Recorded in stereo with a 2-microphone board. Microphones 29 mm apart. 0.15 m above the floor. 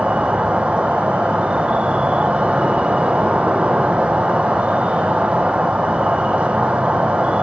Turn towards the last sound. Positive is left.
turn(degrees=-50)  # may be behind; listen again after turning